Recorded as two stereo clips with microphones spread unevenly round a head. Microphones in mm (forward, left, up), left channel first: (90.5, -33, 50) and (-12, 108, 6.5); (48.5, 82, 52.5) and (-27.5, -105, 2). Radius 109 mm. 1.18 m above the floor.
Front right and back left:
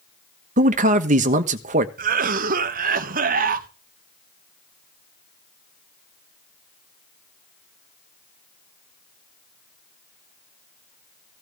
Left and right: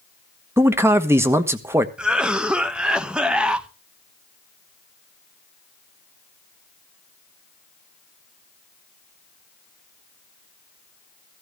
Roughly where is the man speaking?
Behind.